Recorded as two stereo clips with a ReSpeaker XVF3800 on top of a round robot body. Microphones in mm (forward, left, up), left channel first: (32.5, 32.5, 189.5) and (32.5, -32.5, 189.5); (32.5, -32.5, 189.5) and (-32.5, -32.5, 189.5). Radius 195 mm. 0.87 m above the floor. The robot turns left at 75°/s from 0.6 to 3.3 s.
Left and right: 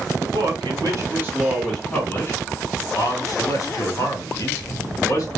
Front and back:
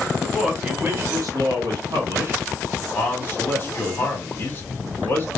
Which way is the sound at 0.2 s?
100° right.